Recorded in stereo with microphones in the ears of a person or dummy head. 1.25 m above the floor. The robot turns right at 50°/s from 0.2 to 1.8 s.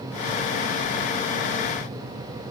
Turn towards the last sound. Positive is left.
No sound to turn to.